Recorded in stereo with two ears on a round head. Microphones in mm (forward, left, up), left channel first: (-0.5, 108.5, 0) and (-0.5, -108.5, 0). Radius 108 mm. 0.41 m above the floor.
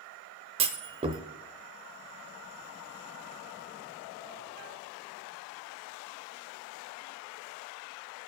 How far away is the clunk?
About 0.6 m.